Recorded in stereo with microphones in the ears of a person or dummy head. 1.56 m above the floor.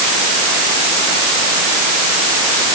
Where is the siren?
I don't hear a siren.